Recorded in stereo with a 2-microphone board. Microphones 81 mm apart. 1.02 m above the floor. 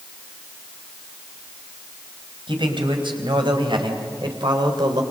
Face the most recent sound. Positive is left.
turn(degrees=-65)  # may be behind; listen again after turning